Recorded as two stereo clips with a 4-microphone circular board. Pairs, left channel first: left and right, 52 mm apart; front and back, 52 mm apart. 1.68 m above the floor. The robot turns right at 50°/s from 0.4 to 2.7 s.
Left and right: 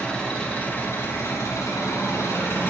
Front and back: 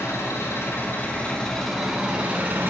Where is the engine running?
20° left, 4.5 m; by 2.7 s 135° left, 4.5 m.